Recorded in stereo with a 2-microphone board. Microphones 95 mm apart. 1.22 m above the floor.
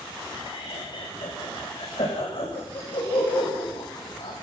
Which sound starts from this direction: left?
Laughter, at 0.3 s.